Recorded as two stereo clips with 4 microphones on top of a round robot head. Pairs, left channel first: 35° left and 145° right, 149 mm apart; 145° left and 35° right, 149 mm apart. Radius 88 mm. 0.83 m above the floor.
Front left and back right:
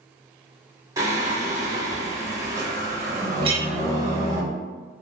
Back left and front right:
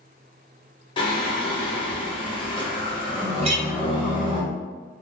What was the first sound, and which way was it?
Singing, 160° left.